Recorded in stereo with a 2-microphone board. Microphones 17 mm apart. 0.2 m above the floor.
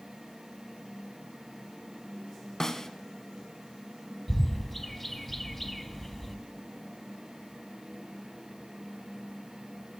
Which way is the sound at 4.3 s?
15° left (ahead or behind).